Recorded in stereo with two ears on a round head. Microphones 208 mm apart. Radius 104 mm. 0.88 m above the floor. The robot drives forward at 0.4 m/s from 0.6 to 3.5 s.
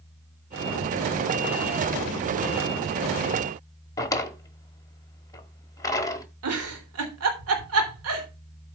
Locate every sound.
4.0 s a drawer: 15° left (ahead or behind), 1.2 m
6.4 s a giggle: 70° right (ahead or behind), 3 m